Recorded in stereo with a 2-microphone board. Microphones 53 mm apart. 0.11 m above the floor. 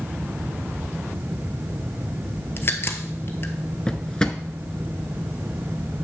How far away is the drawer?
About 0.7 m.